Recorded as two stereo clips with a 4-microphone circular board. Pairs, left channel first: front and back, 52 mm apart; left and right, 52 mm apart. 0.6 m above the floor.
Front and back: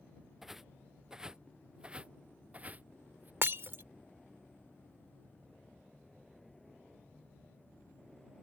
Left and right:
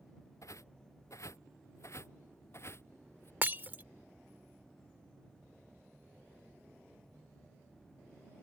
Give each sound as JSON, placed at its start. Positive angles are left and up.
{"t": 0.4, "sound": "footsteps", "azimuth_deg": 95}
{"t": 3.4, "sound": "breaking glass", "azimuth_deg": -140}